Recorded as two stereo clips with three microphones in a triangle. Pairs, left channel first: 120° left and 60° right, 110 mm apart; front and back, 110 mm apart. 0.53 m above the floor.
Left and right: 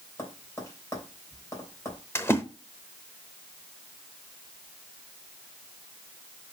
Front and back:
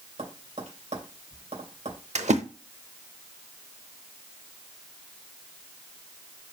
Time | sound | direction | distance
0.2 | tapping | straight behind | 3 m
2.1 | a splash | 170° right | 0.8 m